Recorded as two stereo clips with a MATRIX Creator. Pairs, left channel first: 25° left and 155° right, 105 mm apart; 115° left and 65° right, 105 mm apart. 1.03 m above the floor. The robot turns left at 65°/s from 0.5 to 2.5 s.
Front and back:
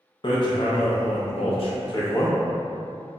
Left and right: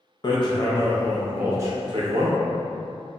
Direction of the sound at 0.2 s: 65° left.